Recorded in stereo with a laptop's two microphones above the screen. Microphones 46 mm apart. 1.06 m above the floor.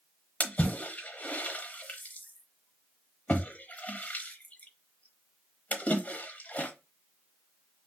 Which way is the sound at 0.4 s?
35° left (ahead or behind).